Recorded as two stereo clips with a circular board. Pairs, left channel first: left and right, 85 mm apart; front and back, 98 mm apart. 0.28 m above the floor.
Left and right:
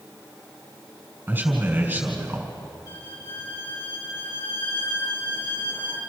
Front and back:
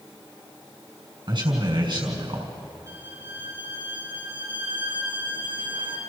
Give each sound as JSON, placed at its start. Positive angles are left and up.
{"t": 1.3, "sound": "a man speaking", "azimuth_deg": -155, "distance_m": 3.5}
{"t": 2.9, "sound": "a violin", "azimuth_deg": 125, "distance_m": 4.5}